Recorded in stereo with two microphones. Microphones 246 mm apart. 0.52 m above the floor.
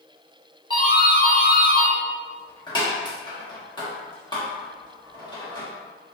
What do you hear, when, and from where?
0.7 s a doorbell: 20° left (ahead or behind), 1.1 m